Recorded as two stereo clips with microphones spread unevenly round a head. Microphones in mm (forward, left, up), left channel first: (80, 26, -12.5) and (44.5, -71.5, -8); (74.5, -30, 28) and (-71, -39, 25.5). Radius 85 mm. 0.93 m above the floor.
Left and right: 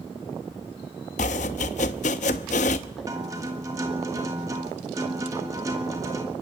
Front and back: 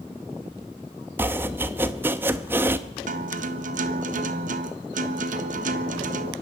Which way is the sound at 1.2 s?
105° left.